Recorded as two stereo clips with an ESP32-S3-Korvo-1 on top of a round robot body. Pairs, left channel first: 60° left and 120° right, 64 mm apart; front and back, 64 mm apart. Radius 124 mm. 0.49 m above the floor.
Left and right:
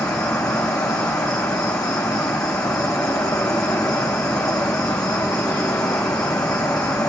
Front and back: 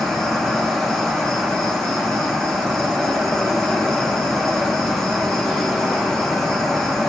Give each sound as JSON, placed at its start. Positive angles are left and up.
{"t": 0.0, "sound": "an insect", "azimuth_deg": 80, "distance_m": 3.5}